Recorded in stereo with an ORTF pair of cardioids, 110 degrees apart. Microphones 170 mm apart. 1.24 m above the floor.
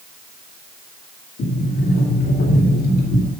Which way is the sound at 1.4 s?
60° left.